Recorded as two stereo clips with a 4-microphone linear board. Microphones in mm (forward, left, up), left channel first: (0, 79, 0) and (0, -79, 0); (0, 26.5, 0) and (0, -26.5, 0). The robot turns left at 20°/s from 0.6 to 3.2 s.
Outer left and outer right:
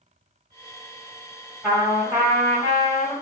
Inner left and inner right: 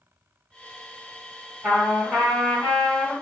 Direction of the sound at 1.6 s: 15° right (ahead or behind).